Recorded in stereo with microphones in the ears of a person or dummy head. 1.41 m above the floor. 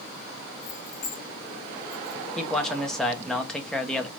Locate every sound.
0.6 s keys jangling: 45° left (ahead or behind), 2 m; by 2.2 s 10° left (ahead or behind), 1.3 m
2.4 s a man speaking: 5° left (ahead or behind), 0.8 m